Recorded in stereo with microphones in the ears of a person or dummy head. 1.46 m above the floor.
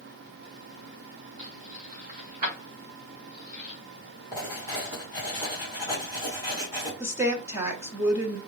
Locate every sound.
1.4 s keys jangling: 45° right (ahead or behind), 0.7 m
4.3 s writing: 20° right (ahead or behind), 2 m
7.0 s a woman speaking: 15° right (ahead or behind), 1.2 m